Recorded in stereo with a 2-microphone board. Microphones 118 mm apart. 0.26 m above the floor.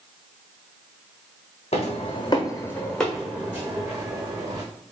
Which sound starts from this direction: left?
Footsteps, at 1.7 s.